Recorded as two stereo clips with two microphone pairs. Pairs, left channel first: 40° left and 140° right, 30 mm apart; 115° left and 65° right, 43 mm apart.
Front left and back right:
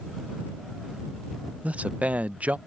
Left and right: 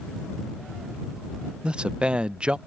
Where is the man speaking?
130° right.